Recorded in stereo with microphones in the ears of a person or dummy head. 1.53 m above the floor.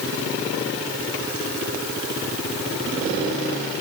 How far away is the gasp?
I don't hear a gasp.